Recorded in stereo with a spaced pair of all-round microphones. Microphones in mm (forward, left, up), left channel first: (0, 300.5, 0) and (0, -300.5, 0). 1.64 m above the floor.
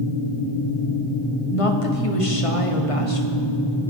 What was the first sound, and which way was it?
A woman speaking, 65° left (ahead or behind).